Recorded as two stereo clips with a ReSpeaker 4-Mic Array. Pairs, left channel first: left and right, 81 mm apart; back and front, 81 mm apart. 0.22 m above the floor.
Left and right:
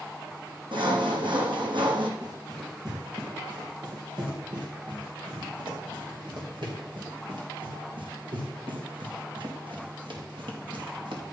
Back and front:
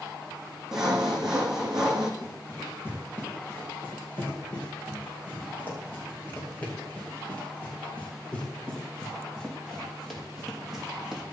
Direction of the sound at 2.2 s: 120° right.